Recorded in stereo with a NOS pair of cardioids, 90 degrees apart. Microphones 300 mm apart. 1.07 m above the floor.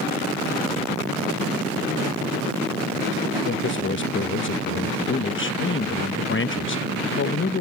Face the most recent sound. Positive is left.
turn(degrees=40)